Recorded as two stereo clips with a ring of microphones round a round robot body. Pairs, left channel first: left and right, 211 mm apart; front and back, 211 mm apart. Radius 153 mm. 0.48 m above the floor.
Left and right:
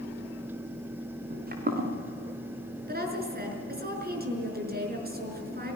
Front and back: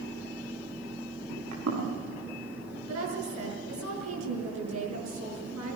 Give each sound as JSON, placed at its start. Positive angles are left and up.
{"t": 1.3, "sound": "footsteps", "azimuth_deg": -135, "distance_m": 5.0}
{"t": 2.9, "sound": "a woman speaking", "azimuth_deg": -135, "distance_m": 5.5}